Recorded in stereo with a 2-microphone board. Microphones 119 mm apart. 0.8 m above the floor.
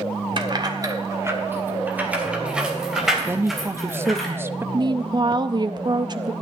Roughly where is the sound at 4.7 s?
Right.